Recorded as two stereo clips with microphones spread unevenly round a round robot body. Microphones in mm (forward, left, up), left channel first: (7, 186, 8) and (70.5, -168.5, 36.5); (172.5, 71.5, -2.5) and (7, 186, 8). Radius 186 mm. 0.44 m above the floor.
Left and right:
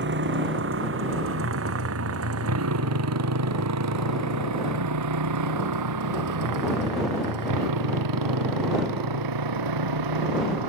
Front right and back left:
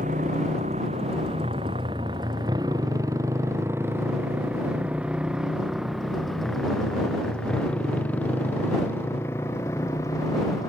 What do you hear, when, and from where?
0.0 s a motorcycle: 145° right; by 10.7 s 115° right